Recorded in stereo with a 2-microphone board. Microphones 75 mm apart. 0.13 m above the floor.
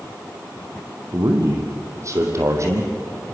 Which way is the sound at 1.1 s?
45° right (ahead or behind).